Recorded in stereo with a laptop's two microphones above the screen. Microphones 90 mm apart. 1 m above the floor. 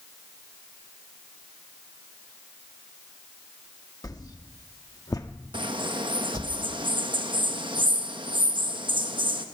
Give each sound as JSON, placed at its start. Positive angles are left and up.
{"t": 4.0, "sound": "a whoosh", "side_deg": 45, "distance_m": 1.4}
{"t": 5.5, "sound": "a bird", "side_deg": -65, "distance_m": 1.1}